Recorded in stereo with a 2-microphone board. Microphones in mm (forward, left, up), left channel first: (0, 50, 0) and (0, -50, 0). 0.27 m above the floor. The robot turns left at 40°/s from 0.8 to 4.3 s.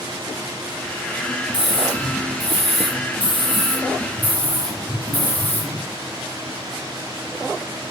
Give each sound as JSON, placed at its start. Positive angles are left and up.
{"t": 1.5, "sound": "a scream", "azimuth_deg": 130, "distance_m": 8.5}